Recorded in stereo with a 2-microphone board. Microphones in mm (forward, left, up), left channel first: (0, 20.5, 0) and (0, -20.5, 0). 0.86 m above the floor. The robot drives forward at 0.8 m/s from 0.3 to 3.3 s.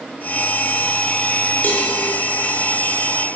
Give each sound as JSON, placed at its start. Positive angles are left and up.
{"t": 1.6, "sound": "a cowbell", "side_deg": 45, "distance_m": 4.0}